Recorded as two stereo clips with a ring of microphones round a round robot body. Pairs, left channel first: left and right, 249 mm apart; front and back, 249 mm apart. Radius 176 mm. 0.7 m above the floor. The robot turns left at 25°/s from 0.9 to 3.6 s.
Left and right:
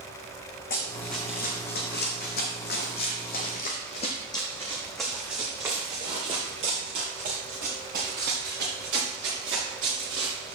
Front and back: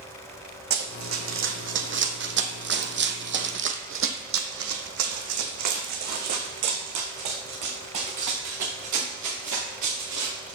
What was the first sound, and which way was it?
Running footsteps, 155° left.